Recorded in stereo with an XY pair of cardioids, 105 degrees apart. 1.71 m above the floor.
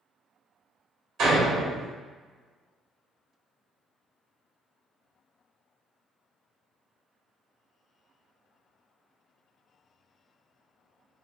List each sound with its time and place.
1.2 s a door slam: 65° right, 1.5 m